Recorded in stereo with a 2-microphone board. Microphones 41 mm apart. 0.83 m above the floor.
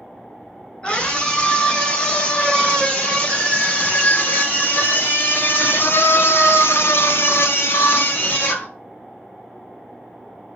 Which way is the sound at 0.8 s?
30° left (ahead or behind).